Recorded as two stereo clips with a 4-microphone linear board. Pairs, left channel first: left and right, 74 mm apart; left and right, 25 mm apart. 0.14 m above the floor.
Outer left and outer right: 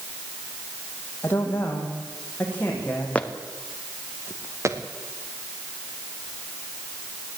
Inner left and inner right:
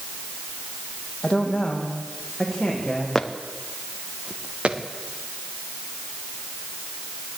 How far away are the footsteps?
About 2.0 m.